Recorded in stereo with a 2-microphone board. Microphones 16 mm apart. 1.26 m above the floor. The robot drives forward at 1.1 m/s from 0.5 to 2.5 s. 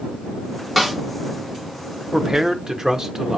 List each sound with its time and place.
0.8 s a snare drum: 5° right (ahead or behind), 1.5 m
2.1 s a man speaking: 55° right (ahead or behind), 0.6 m; by 3.4 s 35° right (ahead or behind), 0.8 m